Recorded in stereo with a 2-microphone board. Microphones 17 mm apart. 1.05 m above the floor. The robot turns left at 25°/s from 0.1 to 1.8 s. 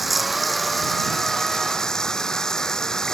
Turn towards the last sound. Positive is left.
turn(degrees=140)